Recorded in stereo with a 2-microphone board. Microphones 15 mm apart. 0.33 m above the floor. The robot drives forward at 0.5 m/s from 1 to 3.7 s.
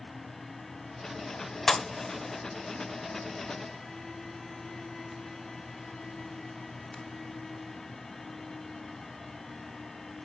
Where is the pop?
35° left (ahead or behind), 0.6 m; by 7.0 s 20° left (ahead or behind), 1.0 m.